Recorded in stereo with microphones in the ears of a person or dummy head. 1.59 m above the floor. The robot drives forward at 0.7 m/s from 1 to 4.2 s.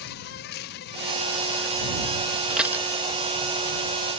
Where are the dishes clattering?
5° right (ahead or behind).